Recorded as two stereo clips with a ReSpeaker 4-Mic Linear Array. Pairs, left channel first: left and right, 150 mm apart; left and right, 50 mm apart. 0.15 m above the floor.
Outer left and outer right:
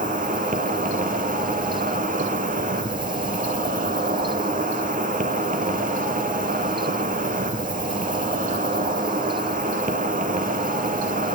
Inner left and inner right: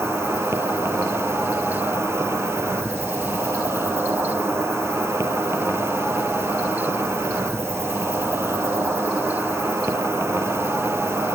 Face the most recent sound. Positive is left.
turn(degrees=-65)  # may be behind; listen again after turning